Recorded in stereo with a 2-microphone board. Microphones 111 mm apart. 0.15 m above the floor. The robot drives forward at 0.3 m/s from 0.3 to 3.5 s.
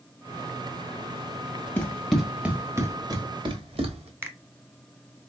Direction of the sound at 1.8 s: 20° left (ahead or behind).